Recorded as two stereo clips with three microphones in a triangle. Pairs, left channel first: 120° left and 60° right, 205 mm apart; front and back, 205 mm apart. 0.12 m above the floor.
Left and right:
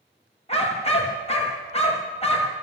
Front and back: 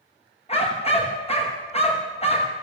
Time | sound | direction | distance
0.5 | a dog barking | 60° left | 5.5 m